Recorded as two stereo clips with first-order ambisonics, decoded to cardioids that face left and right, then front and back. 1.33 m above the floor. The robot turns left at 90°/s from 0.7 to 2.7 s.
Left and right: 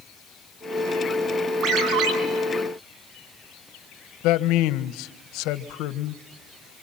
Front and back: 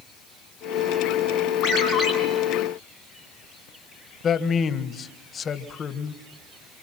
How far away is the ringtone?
About 6 m.